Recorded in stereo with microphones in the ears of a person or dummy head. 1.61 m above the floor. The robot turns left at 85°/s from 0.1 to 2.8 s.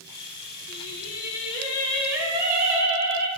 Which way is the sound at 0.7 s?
110° left.